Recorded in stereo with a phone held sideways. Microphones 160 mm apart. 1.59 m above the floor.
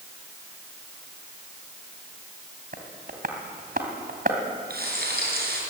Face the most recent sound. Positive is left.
turn(degrees=-80)